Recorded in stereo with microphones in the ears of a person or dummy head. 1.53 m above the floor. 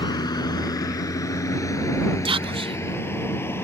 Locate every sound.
0.0 s a vehicle: 20° left (ahead or behind); by 3.6 s 5° left (ahead or behind)
2.2 s whispering: 30° right (ahead or behind)